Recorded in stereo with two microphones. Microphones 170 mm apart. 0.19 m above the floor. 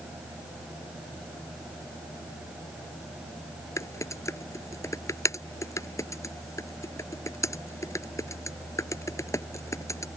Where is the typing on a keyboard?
15° left (ahead or behind).